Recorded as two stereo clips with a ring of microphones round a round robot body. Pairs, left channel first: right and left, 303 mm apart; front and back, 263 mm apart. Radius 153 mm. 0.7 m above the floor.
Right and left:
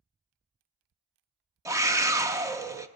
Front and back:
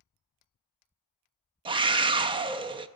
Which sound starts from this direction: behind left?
A scream, at 1.6 s.